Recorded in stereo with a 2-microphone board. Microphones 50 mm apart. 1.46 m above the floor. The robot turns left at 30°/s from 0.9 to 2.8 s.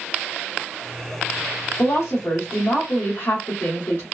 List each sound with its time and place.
1.8 s a woman speaking: 85° left, 0.9 m; by 4.0 s 55° left, 0.9 m